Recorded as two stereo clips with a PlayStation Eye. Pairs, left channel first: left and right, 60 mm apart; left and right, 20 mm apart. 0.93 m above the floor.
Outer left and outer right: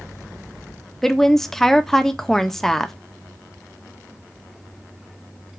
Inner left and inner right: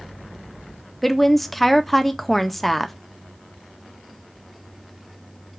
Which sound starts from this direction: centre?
A woman speaking, at 1.0 s.